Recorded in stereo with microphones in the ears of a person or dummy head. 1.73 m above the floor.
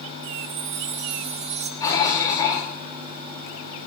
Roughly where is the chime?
Right.